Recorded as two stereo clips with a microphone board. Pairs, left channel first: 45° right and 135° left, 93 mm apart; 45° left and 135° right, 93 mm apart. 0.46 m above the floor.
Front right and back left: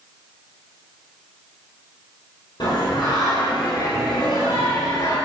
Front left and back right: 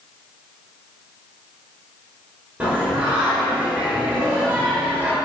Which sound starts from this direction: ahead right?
Singing, at 2.6 s.